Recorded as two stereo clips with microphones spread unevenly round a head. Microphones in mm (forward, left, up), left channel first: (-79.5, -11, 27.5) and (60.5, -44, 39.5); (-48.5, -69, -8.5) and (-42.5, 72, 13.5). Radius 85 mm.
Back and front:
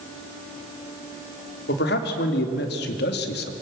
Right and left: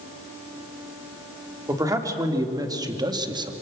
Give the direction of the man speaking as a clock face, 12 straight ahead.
7 o'clock.